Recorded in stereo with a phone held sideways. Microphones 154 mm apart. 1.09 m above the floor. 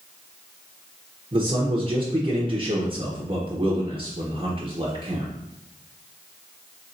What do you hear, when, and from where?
1.3 s a man speaking: 35° right (ahead or behind), 0.7 m